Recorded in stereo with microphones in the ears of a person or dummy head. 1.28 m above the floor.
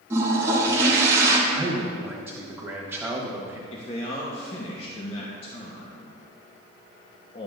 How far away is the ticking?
I don't hear ticking.